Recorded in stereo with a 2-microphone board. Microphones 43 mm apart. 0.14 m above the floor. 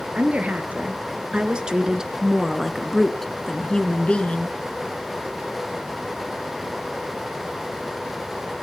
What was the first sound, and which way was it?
A woman speaking, 35° right (ahead or behind).